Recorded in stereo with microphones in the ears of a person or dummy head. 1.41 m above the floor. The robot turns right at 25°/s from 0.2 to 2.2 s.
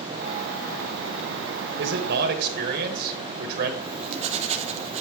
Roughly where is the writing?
Right.